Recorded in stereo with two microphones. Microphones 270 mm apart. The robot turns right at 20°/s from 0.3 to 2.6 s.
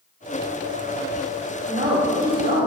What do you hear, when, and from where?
1.7 s a woman speaking: 30° right (ahead or behind), 1.5 m; by 2.7 s 35° right (ahead or behind), 1.5 m